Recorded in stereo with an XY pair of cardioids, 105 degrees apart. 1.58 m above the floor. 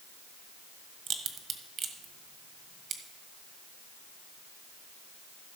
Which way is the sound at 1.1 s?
70° right.